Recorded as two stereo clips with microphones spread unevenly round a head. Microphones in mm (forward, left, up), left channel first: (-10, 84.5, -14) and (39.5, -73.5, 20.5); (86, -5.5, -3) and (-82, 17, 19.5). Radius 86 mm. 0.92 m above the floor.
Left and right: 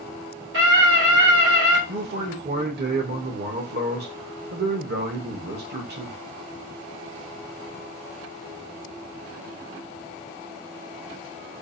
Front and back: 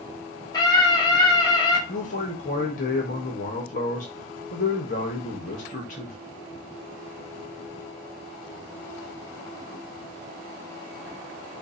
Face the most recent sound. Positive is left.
turn(degrees=-45)